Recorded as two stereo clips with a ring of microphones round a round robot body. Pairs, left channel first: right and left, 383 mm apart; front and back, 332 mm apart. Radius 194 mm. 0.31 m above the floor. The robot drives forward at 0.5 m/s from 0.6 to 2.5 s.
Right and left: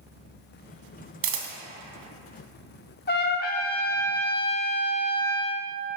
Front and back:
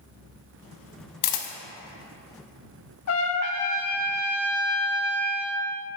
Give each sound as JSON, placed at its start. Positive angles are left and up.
{"t": 1.2, "sound": "a camera shutter", "azimuth_deg": 30, "distance_m": 0.8}
{"t": 3.1, "sound": "a trumpet", "azimuth_deg": -30, "distance_m": 0.5}